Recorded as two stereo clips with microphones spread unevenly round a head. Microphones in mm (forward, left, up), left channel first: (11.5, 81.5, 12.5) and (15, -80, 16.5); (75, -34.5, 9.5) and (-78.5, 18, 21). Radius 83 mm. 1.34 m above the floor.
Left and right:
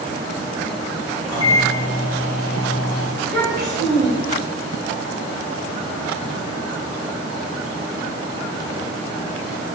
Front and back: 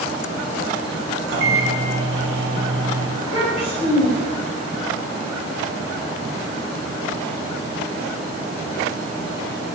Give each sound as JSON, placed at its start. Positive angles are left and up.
{"t": 1.3, "sound": "a microwave", "azimuth_deg": 160, "distance_m": 0.6}
{"t": 3.2, "sound": "a child speaking", "azimuth_deg": -75, "distance_m": 1.1}